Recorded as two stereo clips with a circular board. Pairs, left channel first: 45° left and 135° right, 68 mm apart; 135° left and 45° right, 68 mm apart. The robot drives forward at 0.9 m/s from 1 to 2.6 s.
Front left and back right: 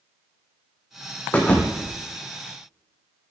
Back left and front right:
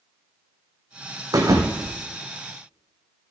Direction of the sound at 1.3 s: 20° right.